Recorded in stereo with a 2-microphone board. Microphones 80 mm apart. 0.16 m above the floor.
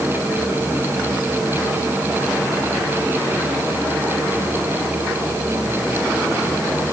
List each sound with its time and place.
Only background noise.